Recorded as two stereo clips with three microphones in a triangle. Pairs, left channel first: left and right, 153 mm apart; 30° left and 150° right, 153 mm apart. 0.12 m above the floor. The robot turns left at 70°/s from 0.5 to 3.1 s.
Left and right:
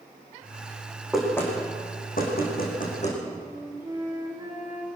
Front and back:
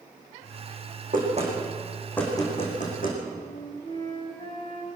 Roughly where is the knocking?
Behind.